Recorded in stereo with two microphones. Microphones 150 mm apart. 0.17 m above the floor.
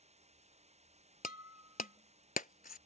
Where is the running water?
45° right (ahead or behind).